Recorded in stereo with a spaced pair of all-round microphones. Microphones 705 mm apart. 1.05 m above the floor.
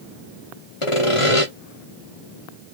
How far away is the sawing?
About 1.0 m.